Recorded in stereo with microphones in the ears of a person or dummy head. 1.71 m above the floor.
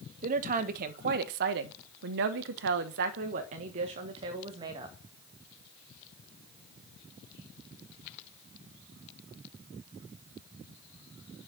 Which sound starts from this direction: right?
A woman speaking, at 0.2 s.